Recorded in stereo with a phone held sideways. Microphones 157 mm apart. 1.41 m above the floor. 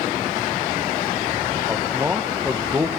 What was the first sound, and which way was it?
A man speaking, 15° right (ahead or behind).